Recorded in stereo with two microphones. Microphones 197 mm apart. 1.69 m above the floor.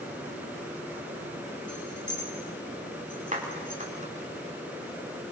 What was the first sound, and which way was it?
Keys jangling, 70° left (ahead or behind).